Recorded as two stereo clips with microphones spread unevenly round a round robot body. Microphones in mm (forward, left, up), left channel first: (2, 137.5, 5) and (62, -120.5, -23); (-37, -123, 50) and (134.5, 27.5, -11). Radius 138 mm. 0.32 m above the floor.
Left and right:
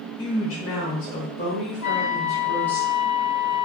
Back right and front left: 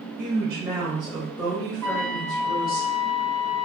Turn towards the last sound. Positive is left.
turn(degrees=135)